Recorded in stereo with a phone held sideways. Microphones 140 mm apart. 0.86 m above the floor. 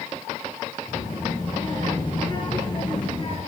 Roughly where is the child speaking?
Left.